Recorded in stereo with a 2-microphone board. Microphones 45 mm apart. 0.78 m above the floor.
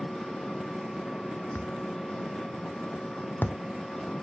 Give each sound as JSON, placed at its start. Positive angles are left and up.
{"t": 0.0, "sound": "an engine running", "side_deg": 20}
{"t": 1.6, "sound": "a thud", "side_deg": 50}